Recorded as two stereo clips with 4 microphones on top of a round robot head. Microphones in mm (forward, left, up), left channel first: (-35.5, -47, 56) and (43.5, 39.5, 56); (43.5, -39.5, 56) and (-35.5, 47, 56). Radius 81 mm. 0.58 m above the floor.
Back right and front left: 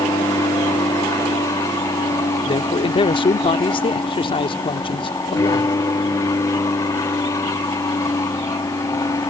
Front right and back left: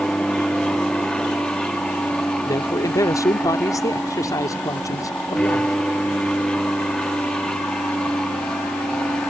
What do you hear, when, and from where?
0.0 s an aircraft: 125° right
2.5 s a man speaking: 105° right